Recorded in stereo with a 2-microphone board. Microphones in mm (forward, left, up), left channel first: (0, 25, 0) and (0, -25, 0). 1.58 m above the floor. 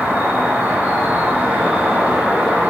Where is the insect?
55° right (ahead or behind), 1.5 m.